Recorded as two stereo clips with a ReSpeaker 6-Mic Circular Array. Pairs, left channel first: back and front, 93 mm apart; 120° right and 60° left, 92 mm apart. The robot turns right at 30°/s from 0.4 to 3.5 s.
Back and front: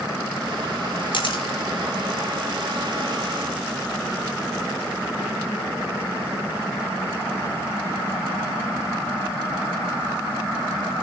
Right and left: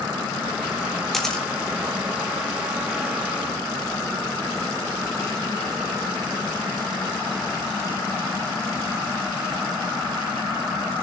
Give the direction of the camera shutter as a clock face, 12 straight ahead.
7 o'clock.